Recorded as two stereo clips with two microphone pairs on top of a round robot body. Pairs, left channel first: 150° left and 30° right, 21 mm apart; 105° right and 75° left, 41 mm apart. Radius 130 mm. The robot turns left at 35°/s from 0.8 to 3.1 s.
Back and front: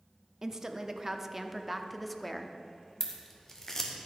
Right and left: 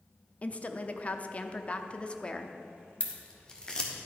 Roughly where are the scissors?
Behind.